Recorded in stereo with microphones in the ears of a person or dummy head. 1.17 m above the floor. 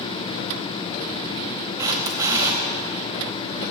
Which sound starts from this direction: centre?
A camera shutter, at 1.8 s.